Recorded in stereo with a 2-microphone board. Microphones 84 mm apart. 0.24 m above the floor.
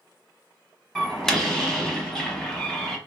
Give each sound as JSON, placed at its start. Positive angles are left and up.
{"t": 0.9, "sound": "a door slam", "side_deg": 5, "distance_m": 0.9}